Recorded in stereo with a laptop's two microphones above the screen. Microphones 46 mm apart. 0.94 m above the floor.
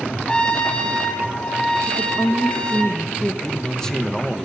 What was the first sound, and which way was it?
A trumpet, 20° left (ahead or behind).